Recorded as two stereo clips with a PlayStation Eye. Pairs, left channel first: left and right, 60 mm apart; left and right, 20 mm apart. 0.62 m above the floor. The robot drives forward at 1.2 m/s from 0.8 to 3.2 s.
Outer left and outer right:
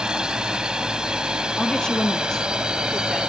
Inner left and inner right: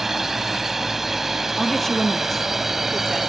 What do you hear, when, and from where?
0.0 s a drone: 15° right (ahead or behind)
1.6 s a woman speaking: 10° left (ahead or behind); by 3.3 s 5° left (ahead or behind)